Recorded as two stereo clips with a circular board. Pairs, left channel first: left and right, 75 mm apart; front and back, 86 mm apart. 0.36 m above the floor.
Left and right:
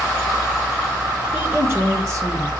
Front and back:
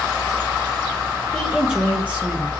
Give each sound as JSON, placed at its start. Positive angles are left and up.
{"t": 1.3, "sound": "a woman speaking", "azimuth_deg": -90, "distance_m": 0.9}